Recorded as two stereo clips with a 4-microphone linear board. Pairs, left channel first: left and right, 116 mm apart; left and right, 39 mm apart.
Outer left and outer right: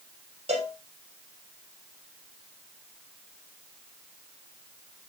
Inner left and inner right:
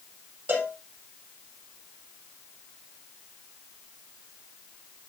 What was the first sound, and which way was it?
A cowbell, 60° right (ahead or behind).